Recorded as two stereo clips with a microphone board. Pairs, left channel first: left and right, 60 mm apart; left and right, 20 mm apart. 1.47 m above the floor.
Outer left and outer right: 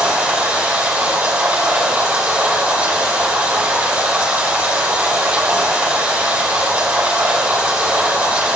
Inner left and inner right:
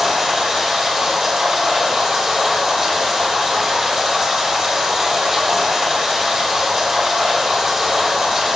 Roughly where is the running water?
Right.